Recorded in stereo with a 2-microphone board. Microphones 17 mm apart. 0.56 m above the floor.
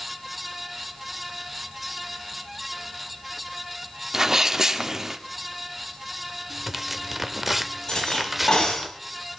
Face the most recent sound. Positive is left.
turn(degrees=55)  # may be behind; listen again after turning